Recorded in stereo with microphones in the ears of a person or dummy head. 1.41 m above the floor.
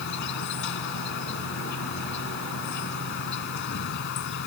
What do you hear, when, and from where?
0.0 s an insect: 60° left (ahead or behind)